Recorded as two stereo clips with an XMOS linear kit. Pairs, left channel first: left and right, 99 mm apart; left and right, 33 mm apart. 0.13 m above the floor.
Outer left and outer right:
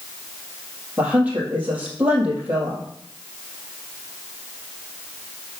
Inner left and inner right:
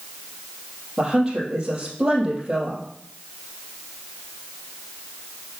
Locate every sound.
1.0 s a woman speaking: 15° right (ahead or behind), 3 m